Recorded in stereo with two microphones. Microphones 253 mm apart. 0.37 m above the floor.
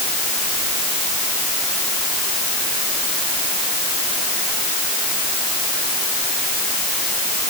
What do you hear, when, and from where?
Only background noise.